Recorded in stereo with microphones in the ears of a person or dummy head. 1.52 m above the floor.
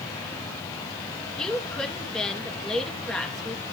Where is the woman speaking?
Centre (ahead or behind), 3 m.